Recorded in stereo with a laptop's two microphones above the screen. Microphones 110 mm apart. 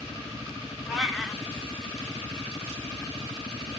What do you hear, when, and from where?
0.9 s a cat meowing: centre (ahead or behind), 0.5 m